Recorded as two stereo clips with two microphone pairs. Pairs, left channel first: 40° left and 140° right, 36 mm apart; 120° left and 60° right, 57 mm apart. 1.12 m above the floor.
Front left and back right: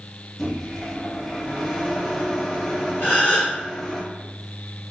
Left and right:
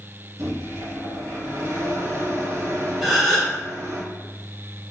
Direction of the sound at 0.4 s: 40° right.